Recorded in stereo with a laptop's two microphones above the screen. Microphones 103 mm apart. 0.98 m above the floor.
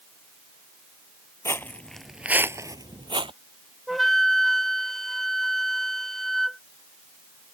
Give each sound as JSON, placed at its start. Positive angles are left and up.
{"t": 1.4, "sound": "footsteps", "side_deg": 25}
{"t": 3.9, "sound": "a flute", "side_deg": 5}